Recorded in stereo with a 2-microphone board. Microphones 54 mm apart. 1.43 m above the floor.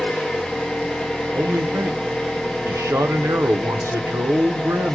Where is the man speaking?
60° right (ahead or behind), 0.6 m.